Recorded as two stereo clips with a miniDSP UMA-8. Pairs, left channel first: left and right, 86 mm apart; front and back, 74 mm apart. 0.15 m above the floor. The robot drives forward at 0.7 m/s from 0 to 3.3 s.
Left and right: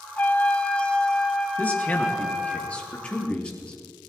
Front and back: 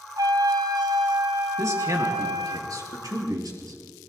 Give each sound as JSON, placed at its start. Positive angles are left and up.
{"t": 0.2, "sound": "a trumpet", "azimuth_deg": 155, "distance_m": 0.5}
{"t": 1.6, "sound": "a man speaking", "azimuth_deg": 155, "distance_m": 2.5}